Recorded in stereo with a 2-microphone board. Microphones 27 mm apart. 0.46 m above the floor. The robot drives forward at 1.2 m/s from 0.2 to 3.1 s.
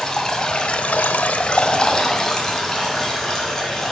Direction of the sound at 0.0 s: 25° left (ahead or behind).